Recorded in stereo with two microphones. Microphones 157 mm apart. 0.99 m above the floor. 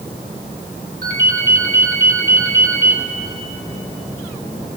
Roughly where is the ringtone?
Right.